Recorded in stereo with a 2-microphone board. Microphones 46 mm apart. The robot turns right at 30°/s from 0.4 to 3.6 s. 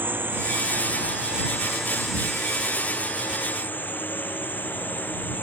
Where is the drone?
50° right; by 5.4 s 45° left.